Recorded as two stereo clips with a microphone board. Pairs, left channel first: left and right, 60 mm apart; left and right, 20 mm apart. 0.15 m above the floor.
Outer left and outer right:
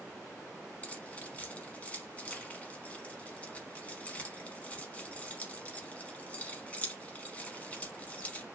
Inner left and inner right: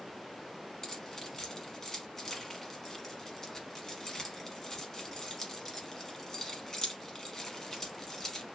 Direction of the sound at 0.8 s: 25° left (ahead or behind).